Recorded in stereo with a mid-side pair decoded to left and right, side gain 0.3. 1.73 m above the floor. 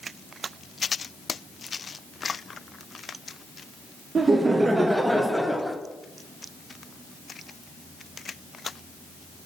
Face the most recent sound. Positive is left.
turn(degrees=10)